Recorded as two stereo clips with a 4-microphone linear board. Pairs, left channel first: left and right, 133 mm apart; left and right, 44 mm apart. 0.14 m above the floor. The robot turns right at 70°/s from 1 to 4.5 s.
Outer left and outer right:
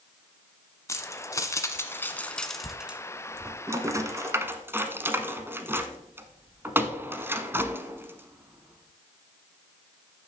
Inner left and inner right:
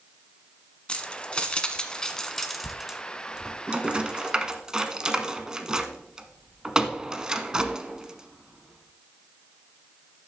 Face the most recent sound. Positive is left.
turn(degrees=-15)  # may be behind; listen again after turning